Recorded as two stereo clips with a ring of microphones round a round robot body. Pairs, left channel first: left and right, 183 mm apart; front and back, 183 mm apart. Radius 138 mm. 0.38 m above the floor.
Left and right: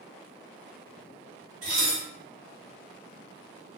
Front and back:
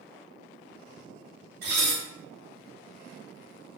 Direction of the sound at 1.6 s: 150° right.